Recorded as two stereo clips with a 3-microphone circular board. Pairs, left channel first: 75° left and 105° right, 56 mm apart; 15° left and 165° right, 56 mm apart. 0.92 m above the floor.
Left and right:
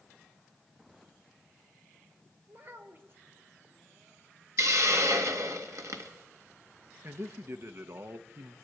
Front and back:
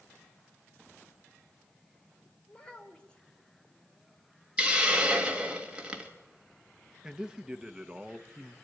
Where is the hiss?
95° right, 1.8 m.